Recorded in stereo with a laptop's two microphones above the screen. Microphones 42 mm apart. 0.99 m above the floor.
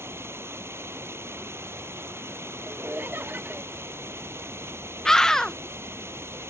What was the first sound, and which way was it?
Running water, 90° right.